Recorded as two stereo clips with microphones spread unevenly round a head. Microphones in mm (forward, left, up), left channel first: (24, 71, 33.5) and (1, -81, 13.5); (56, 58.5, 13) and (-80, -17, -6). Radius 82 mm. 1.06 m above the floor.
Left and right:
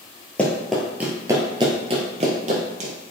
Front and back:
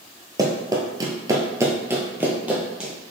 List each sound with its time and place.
0.4 s running footsteps: 150° left, 1.2 m; by 2.9 s 60° right, 1.5 m